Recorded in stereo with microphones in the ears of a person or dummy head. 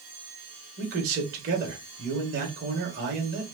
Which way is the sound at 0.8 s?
50° right (ahead or behind).